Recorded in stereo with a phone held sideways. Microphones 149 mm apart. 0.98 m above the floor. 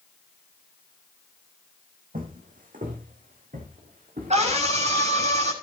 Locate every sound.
2.1 s footsteps: 70° right (ahead or behind), 3.5 m; by 5.1 s 65° right (ahead or behind), 6.5 m
4.3 s a scream: 50° right (ahead or behind), 6.5 m